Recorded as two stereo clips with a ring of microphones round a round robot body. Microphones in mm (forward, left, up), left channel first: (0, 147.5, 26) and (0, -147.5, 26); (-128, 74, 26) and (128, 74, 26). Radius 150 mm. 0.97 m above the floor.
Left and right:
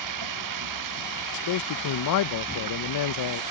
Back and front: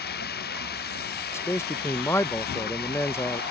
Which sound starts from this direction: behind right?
Running water, at 0.0 s.